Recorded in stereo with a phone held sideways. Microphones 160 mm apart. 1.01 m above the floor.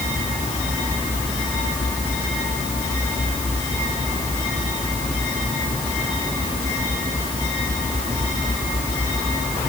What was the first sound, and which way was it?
Only background noise.